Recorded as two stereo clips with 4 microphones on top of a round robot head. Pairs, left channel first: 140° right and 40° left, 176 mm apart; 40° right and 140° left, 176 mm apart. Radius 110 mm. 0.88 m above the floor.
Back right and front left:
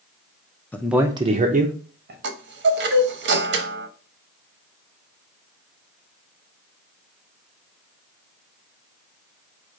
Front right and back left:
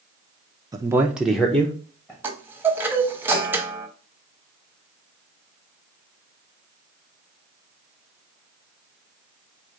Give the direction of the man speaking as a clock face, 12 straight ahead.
7 o'clock.